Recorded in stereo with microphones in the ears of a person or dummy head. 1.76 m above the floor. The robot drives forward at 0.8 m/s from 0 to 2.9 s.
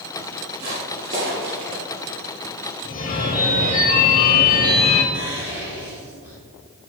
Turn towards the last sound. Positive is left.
turn(degrees=-15)  # may be behind; listen again after turning